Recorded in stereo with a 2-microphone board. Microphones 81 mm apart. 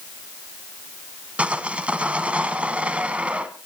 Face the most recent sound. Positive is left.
turn(degrees=-15)  # may be behind; listen again after turning